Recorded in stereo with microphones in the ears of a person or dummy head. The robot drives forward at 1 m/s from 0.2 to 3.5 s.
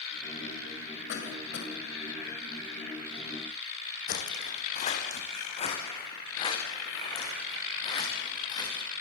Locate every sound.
1.1 s a cough: 70° left (ahead or behind), 6.5 m; by 1.7 s 75° left (ahead or behind), 6.5 m
4.1 s footsteps: 45° left (ahead or behind), 3 m; by 8.8 s 20° left (ahead or behind), 7.5 m